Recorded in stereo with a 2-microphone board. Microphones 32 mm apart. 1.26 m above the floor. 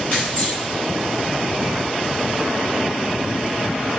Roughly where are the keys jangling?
Left.